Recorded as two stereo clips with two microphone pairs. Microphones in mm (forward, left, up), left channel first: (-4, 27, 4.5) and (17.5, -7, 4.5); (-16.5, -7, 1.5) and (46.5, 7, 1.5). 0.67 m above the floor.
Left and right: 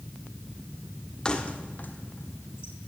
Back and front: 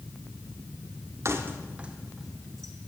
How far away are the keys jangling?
About 1.3 m.